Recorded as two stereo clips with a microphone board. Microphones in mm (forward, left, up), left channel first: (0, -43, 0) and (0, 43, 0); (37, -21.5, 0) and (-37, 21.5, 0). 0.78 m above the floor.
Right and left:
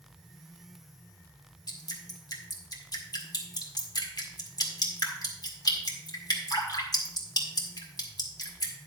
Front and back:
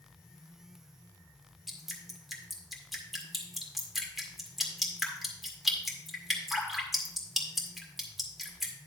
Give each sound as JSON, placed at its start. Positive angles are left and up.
{"t": 1.7, "sound": "dripping", "azimuth_deg": -120, "distance_m": 1.8}